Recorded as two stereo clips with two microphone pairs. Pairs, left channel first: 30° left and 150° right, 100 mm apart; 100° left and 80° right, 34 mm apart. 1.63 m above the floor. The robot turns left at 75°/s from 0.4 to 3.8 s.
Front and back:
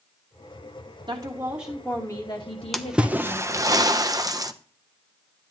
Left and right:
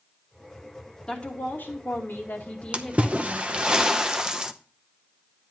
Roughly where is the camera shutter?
No camera shutter in this recording.